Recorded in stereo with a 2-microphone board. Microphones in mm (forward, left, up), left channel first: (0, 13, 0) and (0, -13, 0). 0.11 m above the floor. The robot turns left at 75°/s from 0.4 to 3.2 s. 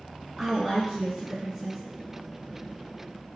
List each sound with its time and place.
0.4 s a woman speaking: 15° right (ahead or behind), 1.5 m